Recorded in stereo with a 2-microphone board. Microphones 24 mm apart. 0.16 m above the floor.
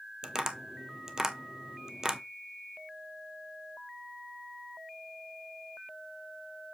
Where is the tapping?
25° right (ahead or behind), 0.9 m.